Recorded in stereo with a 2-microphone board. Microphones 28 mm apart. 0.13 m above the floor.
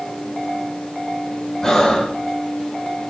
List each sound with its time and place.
1.6 s breathing: 20° left (ahead or behind), 0.6 m